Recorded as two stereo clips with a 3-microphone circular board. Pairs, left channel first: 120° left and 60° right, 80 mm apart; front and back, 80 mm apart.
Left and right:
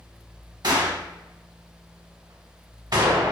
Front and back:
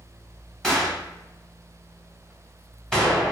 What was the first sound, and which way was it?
A gunshot, 80° right.